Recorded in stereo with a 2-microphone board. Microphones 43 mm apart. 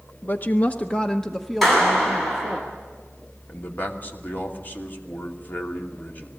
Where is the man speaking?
45° left (ahead or behind), 2.5 m.